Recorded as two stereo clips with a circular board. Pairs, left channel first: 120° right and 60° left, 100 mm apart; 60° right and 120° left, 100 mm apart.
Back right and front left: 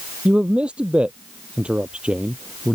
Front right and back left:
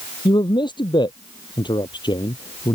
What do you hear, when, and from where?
0.2 s a man speaking: 20° right